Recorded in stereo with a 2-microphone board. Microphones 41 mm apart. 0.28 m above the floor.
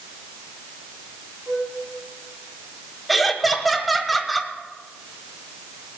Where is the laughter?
Centre (ahead or behind), 1.5 m.